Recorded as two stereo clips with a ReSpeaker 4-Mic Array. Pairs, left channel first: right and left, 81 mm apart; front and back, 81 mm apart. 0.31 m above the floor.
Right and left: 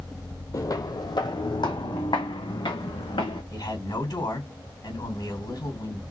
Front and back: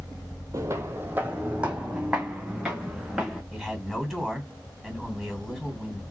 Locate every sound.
0.5 s footsteps: 135° right, 0.6 m; by 3.4 s 95° right, 2 m
3.5 s a man speaking: 85° right, 2.5 m